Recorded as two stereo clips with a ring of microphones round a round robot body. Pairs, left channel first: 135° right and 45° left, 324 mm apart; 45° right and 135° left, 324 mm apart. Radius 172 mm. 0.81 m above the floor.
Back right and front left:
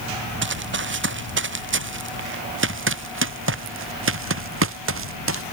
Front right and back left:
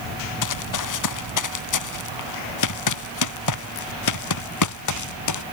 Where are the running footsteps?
10° right.